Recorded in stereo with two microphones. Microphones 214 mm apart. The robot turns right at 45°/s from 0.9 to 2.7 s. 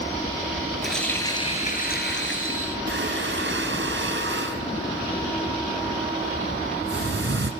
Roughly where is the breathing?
Right.